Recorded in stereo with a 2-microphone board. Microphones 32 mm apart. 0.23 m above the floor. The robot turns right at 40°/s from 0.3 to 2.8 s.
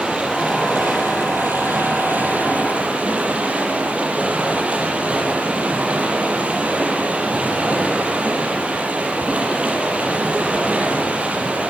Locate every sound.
0.0 s running water: 140° right, 6.5 m; by 11.7 s 40° right, 6.5 m